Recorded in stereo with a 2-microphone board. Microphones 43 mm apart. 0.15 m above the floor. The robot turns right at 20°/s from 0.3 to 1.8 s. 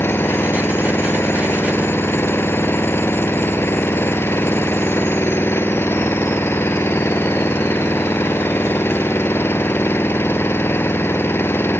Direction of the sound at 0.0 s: 75° left.